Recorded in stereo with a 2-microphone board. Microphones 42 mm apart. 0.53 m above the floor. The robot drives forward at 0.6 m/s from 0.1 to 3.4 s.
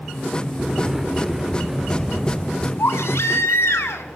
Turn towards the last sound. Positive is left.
turn(degrees=85)